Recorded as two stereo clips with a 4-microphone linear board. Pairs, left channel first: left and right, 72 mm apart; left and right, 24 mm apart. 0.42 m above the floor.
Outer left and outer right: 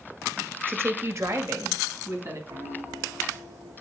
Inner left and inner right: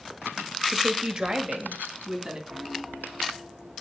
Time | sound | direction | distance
0.7 | a woman speaking | 30° right (ahead or behind) | 0.9 m
2.5 | a piano | 70° right (ahead or behind) | 4.5 m